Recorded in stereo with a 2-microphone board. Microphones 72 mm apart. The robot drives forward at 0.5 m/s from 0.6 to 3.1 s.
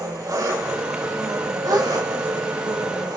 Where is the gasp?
70° right (ahead or behind), 3 m.